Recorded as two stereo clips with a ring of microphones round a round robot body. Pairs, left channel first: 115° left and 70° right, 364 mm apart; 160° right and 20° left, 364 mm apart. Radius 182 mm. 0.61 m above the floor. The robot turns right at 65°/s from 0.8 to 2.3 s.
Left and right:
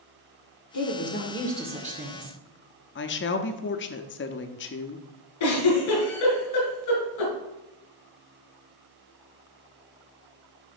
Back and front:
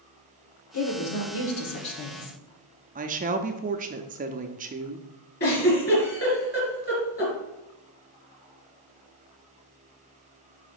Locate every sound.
0.7 s a woman speaking: 155° left, 1.7 m; by 2.4 s 110° right, 1.7 m
3.0 s a woman speaking: 75° left, 0.6 m
5.4 s a giggle: 135° left, 3.5 m